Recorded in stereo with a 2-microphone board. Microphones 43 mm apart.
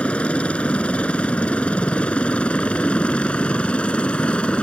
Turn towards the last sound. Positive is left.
turn(degrees=25)  # may be behind; listen again after turning